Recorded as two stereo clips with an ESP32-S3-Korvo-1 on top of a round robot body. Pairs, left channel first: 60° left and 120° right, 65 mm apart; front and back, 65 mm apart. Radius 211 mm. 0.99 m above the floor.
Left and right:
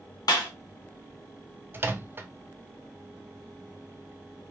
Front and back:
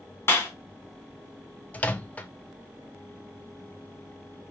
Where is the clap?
45° left, 1.5 m.